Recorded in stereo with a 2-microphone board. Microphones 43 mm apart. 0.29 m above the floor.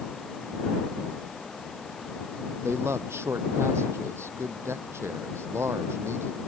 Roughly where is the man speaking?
Right.